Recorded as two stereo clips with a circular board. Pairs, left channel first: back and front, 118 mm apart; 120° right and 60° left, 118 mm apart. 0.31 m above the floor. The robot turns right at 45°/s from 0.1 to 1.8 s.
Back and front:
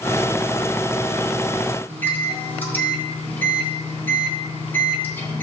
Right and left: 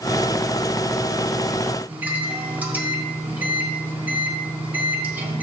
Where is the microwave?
125° left, 1.1 m.